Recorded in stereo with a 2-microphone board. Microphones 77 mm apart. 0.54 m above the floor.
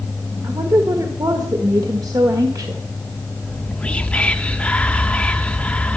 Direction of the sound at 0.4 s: 55° right (ahead or behind).